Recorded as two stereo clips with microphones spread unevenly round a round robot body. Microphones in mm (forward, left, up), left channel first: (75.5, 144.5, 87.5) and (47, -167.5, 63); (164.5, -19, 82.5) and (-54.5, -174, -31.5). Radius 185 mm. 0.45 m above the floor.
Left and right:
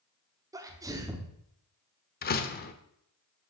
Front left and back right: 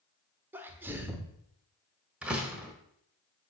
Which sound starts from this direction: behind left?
A door slam, at 2.2 s.